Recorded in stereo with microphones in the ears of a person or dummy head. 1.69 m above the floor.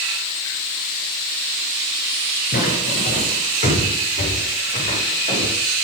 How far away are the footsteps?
About 8.5 m.